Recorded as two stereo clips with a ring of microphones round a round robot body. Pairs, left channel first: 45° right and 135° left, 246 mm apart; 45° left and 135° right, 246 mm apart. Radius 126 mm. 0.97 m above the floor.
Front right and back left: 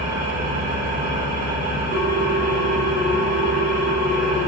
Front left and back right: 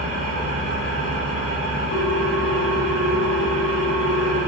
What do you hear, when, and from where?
0.0 s an engine running: 80° left, 1.0 m
1.9 s a ringtone: 80° left, 1.9 m